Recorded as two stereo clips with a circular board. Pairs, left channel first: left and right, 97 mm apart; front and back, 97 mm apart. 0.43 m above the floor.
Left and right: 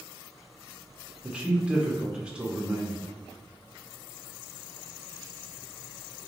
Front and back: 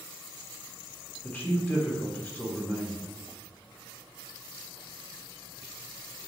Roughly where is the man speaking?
Ahead right.